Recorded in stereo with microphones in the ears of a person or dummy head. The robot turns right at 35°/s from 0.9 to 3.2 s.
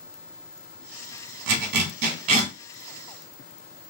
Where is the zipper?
70° right (ahead or behind), 1.1 m; by 2.5 s 35° right (ahead or behind), 1.1 m.